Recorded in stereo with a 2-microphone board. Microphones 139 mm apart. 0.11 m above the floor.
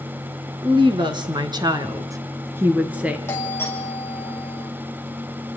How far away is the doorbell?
About 3.5 m.